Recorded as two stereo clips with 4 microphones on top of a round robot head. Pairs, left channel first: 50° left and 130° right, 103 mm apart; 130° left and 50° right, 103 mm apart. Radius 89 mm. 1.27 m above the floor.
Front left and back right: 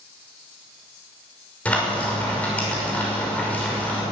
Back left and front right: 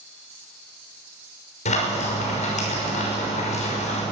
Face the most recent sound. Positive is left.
turn(degrees=125)